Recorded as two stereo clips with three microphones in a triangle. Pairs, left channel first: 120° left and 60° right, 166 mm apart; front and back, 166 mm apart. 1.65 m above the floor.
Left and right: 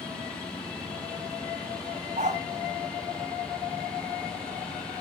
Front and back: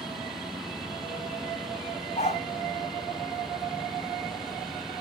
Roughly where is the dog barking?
Ahead right.